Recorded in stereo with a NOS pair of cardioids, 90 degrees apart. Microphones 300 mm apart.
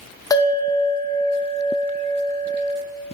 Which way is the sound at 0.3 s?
10° left.